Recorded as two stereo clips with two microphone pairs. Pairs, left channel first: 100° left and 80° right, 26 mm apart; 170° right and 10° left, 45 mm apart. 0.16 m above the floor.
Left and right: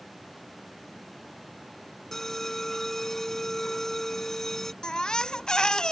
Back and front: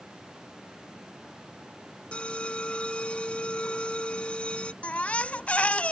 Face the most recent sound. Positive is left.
turn(degrees=145)